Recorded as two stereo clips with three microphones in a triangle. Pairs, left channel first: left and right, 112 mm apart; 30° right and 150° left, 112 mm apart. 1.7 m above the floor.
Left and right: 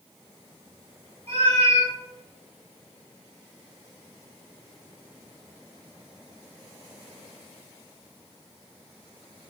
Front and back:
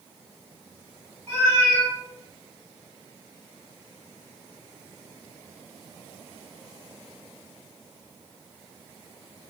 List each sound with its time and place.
1.3 s a cat meowing: 100° right, 1.8 m